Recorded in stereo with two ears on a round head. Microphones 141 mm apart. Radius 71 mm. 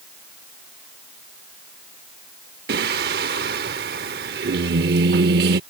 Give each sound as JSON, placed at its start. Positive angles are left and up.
{"t": 2.7, "sound": "singing", "side_deg": -65}